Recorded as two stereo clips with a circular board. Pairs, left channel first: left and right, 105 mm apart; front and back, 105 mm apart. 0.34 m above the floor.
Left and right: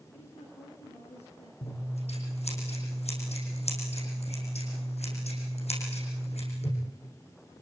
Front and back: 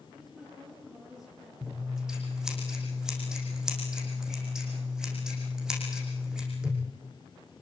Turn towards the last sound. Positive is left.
turn(degrees=95)